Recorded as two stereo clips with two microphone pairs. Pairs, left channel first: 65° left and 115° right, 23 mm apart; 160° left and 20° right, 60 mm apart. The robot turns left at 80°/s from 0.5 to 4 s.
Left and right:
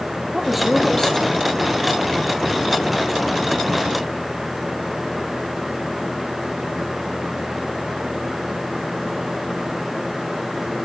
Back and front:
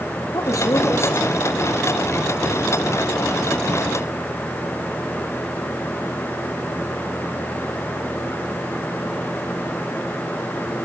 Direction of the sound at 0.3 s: 160° left.